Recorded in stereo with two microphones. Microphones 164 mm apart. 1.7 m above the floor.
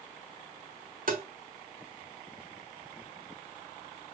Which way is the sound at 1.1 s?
65° right (ahead or behind).